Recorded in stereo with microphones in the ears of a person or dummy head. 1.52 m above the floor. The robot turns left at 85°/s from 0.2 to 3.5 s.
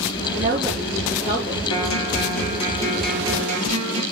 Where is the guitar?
115° left, 3 m; by 4.0 s 40° right, 3 m.